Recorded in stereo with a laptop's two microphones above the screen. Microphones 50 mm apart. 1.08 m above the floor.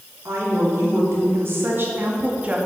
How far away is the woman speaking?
About 2.5 m.